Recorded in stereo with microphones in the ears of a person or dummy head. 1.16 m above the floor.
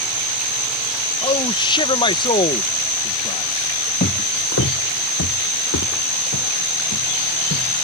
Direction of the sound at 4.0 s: 35° left (ahead or behind).